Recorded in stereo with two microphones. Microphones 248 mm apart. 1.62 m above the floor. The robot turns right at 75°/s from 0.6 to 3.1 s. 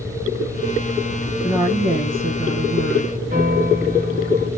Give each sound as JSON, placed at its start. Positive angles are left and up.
{"t": 1.4, "sound": "a woman speaking", "azimuth_deg": -175, "distance_m": 1.5}
{"t": 3.3, "sound": "a piano", "side_deg": -30, "distance_m": 1.6}